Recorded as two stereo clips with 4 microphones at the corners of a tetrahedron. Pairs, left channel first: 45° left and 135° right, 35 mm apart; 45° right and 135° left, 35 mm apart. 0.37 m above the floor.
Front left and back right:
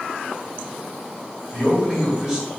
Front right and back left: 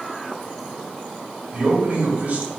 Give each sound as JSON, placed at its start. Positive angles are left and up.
{"t": 1.5, "sound": "a man speaking", "azimuth_deg": 160, "distance_m": 1.7}